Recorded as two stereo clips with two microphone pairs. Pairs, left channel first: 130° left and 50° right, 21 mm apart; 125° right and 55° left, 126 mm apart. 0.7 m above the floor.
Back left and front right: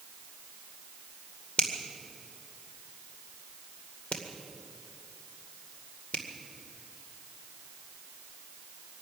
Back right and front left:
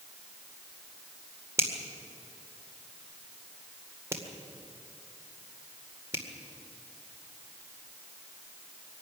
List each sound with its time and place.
1.6 s a finger snap: 120° left, 2 m